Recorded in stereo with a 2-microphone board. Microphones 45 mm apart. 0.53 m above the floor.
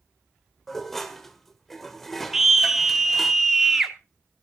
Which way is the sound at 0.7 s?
5° left (ahead or behind).